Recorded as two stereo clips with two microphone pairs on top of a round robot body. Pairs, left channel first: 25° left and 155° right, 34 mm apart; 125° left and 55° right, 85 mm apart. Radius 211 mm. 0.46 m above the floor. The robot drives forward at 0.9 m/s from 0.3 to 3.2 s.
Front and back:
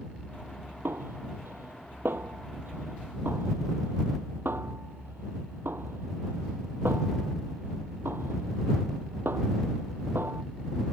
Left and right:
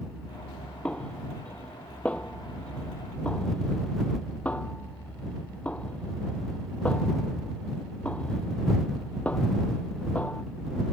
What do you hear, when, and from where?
0.8 s a snare drum: 160° right; by 10.4 s 165° right